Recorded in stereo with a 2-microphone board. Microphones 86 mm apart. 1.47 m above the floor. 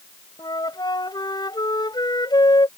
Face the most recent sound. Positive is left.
turn(degrees=55)  # may be behind; listen again after turning